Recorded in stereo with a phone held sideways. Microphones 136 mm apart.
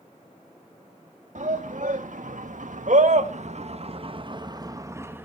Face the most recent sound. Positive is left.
turn(degrees=-15)  # may be behind; listen again after turning